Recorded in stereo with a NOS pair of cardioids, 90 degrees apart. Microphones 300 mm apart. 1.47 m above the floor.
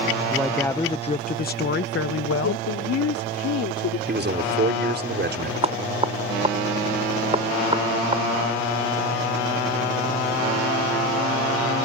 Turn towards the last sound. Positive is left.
turn(degrees=-20)